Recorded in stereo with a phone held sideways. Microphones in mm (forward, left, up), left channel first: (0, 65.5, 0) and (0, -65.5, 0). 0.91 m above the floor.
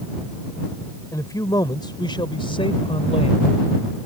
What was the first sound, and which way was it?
A man speaking, 25° left (ahead or behind).